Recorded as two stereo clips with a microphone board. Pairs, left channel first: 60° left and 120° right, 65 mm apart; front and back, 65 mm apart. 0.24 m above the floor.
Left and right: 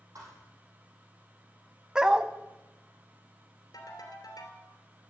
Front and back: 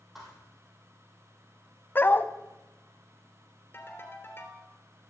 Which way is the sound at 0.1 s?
95° right.